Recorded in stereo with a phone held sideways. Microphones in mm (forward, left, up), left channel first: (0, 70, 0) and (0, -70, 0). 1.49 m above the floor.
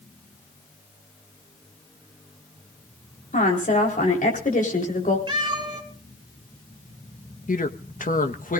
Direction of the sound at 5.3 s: 35° right (ahead or behind).